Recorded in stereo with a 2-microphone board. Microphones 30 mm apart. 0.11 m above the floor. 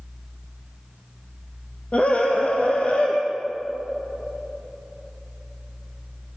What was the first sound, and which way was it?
A scream, 50° left (ahead or behind).